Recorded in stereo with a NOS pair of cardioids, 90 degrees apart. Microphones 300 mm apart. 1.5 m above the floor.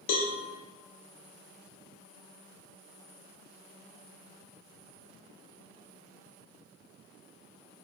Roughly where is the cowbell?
Ahead left.